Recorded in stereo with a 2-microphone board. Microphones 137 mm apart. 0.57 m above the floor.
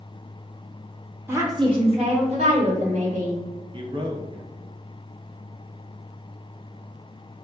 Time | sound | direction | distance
1.3 | a woman speaking | 15° right (ahead or behind) | 1.0 m
3.7 | a man speaking | 40° right (ahead or behind) | 0.7 m